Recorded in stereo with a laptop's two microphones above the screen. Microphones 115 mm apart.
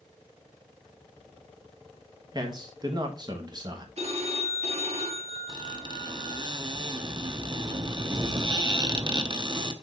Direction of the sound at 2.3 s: 35° right (ahead or behind).